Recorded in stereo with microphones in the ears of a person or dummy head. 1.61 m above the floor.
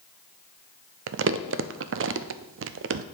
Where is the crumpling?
55° right (ahead or behind), 0.5 m.